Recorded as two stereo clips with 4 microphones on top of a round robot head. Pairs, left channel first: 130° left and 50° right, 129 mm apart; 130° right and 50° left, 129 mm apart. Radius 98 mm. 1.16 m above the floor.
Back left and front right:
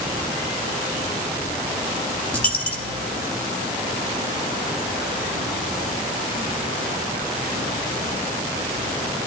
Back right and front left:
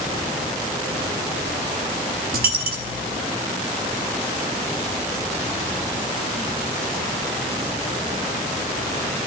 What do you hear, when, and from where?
2.3 s a dropped coin: 55° left, 0.8 m